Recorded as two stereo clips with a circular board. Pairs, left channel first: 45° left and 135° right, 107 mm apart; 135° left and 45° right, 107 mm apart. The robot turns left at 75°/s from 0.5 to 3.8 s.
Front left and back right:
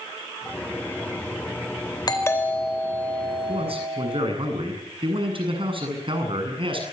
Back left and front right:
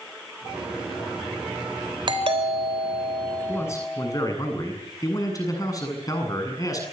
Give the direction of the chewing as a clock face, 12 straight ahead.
I don't hear chewing.